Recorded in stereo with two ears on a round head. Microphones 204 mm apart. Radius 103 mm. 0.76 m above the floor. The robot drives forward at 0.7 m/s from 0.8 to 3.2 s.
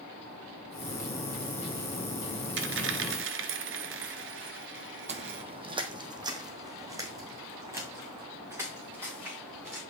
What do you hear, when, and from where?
2.6 s a dropped coin: 50° right (ahead or behind), 1.2 m; by 5.4 s 55° right (ahead or behind), 1.1 m
5.1 s footsteps: 30° right (ahead or behind), 1.0 m; by 9.8 s 10° right (ahead or behind), 4.5 m